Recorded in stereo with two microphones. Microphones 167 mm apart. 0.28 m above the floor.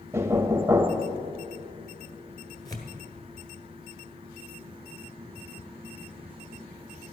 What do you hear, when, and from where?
0.1 s knocking: 15° right (ahead or behind), 0.7 m
2.6 s tearing paper: 20° left (ahead or behind), 1.6 m